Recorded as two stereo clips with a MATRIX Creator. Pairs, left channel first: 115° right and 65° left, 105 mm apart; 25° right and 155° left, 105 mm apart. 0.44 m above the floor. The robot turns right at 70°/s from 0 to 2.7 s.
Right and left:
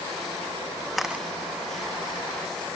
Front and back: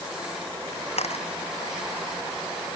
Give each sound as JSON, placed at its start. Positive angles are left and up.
{"t": 1.0, "sound": "a camera shutter", "azimuth_deg": -25}